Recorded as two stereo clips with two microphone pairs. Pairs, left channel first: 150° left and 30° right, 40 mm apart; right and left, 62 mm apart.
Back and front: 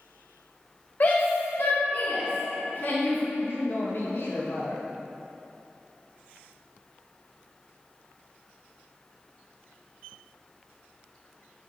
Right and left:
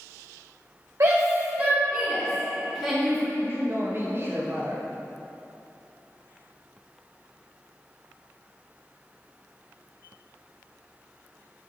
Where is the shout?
115° left, 1.1 m; by 3.2 s 175° right, 3.5 m.